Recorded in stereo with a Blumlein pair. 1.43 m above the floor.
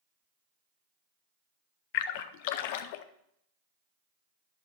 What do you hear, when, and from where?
1.9 s a splash: 50° left, 0.6 m